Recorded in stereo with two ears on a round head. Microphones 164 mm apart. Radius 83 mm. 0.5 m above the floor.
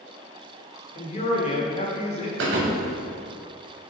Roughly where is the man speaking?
Left.